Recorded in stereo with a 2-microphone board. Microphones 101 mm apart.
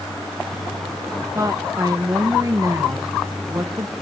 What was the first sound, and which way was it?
A woman speaking, 35° right (ahead or behind).